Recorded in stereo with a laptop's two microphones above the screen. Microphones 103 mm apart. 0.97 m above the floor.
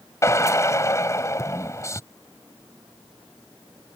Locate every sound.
0.2 s a drill: 30° left (ahead or behind)